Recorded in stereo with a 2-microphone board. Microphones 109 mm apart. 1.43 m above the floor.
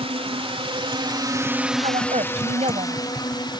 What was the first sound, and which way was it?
A drone, 65° right (ahead or behind).